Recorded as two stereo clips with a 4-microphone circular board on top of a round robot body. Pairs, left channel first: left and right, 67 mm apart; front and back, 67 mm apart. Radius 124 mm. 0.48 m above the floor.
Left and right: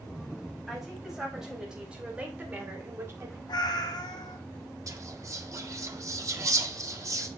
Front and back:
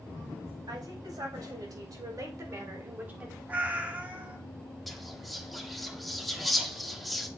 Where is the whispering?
90° right, 1.7 m.